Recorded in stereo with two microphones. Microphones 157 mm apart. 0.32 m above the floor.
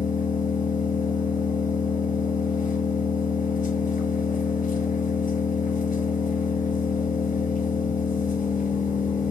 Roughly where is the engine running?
Left.